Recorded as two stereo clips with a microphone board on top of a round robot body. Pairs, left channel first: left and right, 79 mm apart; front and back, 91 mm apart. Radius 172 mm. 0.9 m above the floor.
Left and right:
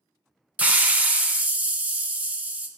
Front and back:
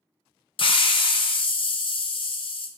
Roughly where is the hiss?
Ahead.